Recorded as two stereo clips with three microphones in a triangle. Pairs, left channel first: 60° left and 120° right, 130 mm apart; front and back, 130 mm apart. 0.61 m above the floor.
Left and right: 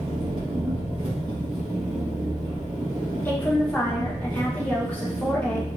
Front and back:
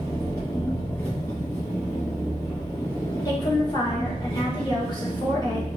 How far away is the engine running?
About 2 m.